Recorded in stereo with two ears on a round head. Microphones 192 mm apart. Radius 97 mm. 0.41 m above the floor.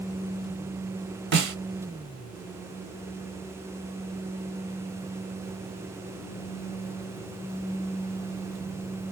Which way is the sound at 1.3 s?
55° right (ahead or behind).